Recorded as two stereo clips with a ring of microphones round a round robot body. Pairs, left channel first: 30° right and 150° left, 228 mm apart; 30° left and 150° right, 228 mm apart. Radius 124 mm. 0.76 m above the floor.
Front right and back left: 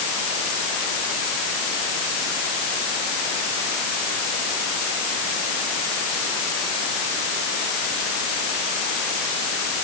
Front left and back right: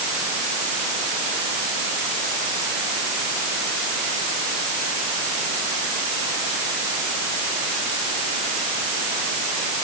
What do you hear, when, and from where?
Only background noise.